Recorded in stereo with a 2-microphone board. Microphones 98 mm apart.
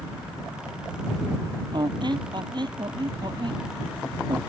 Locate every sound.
1.7 s a squeak: 55° right (ahead or behind)